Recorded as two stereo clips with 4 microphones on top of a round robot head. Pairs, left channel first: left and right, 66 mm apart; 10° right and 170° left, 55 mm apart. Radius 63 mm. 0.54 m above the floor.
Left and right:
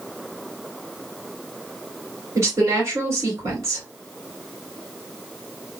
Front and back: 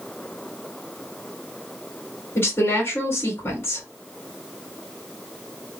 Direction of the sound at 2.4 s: 50° right.